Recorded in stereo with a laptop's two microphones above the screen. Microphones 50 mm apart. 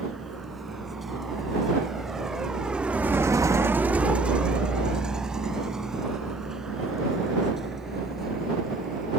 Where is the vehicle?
Centre (ahead or behind); by 9.2 s 10° right (ahead or behind).